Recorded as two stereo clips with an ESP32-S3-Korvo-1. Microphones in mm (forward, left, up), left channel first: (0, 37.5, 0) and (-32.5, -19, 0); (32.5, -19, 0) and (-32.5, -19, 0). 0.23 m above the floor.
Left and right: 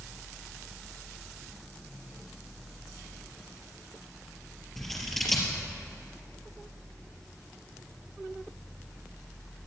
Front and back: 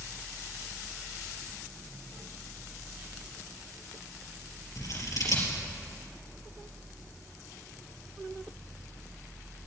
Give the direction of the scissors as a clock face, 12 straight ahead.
1 o'clock.